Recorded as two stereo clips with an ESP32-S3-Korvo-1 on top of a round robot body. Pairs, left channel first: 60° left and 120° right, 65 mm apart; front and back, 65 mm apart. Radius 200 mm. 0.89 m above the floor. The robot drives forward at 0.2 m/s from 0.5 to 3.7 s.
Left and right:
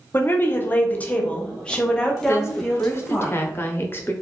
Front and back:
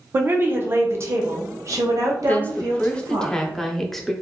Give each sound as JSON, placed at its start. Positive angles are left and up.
{"t": 0.1, "sound": "a woman speaking", "azimuth_deg": 120, "distance_m": 0.6}
{"t": 2.3, "sound": "a woman speaking", "azimuth_deg": 50, "distance_m": 0.9}